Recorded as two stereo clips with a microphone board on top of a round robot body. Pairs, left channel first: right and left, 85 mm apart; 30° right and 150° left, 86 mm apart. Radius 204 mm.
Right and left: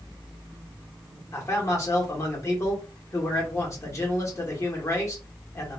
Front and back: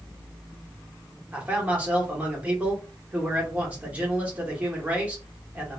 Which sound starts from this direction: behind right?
A man speaking, at 1.3 s.